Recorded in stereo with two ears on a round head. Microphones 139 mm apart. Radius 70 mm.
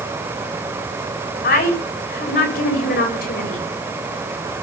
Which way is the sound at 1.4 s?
65° left (ahead or behind).